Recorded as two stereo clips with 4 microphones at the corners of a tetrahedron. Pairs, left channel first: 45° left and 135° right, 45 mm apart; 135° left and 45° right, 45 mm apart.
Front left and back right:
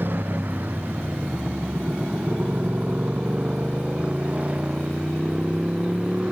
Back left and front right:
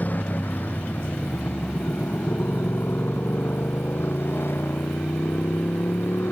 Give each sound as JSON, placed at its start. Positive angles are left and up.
{"t": 0.0, "sound": "a motorcycle", "azimuth_deg": 180}